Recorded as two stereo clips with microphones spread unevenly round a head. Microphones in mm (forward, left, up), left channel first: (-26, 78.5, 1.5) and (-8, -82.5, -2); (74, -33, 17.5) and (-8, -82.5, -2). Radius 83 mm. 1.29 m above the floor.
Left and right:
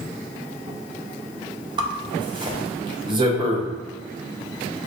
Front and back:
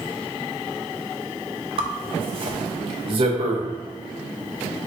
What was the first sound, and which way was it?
A zipper, 135° right.